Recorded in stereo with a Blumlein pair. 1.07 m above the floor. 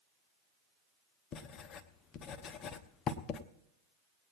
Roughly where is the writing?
Ahead left.